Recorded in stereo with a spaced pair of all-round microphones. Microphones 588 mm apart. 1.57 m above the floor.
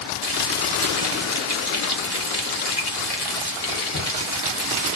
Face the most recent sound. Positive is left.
turn(degrees=40)  # may be behind; listen again after turning